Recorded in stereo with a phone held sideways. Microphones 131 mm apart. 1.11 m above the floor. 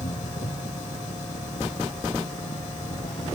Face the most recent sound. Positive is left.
turn(degrees=75)  # may be behind; listen again after turning